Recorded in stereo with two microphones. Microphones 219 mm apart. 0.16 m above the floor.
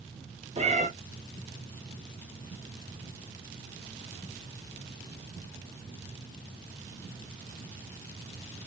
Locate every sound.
0.6 s a cat meowing: 30° right (ahead or behind), 0.6 m